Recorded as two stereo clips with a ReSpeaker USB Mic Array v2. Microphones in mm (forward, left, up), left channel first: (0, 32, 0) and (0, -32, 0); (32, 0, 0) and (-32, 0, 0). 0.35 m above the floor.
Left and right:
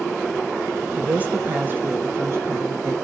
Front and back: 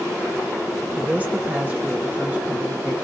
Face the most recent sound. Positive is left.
turn(degrees=-115)